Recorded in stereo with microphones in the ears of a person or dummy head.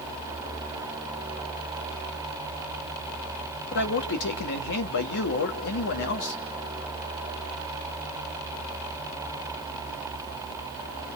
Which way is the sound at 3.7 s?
65° left (ahead or behind).